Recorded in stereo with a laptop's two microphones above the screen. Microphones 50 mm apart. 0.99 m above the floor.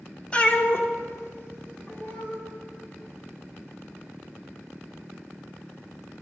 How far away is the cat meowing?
About 0.8 m.